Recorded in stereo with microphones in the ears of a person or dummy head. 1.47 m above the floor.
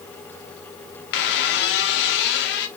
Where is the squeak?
55° left (ahead or behind), 0.9 m.